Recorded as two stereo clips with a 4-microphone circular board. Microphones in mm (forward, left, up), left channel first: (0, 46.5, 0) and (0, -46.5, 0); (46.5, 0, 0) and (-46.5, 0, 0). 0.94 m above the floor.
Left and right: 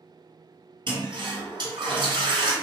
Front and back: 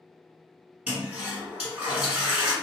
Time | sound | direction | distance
0.9 | a toilet flushing | 105° right | 1.5 m